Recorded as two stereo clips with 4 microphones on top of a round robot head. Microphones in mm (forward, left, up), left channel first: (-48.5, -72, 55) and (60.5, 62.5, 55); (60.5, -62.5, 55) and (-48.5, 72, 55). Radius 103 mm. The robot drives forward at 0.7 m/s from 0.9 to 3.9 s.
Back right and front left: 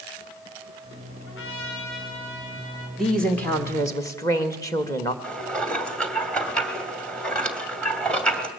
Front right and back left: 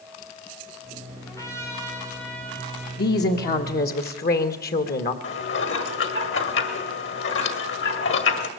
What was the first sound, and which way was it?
A trumpet, 125° right.